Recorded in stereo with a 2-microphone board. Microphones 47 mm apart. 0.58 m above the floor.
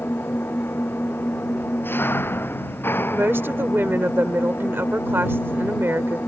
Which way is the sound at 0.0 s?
50° left (ahead or behind).